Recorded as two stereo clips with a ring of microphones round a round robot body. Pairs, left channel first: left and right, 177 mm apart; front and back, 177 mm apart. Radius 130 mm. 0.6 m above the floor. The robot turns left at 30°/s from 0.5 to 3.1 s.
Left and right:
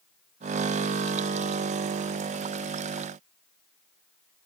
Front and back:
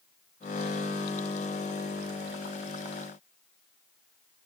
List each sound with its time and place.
Only background noise.